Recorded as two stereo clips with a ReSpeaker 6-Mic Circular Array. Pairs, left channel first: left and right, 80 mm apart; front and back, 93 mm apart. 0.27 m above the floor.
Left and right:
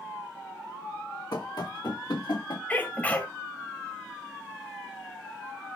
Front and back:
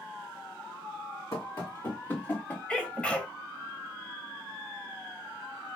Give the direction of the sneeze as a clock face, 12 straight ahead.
10 o'clock.